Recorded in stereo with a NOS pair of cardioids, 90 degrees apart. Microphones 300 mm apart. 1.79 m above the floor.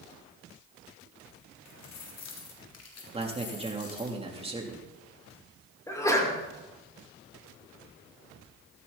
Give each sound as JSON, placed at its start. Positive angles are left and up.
{"t": 1.6, "sound": "keys jangling", "azimuth_deg": 65, "distance_m": 3.0}
{"t": 3.1, "sound": "a man speaking", "azimuth_deg": -20, "distance_m": 3.5}
{"t": 5.9, "sound": "a sneeze", "azimuth_deg": 10, "distance_m": 5.0}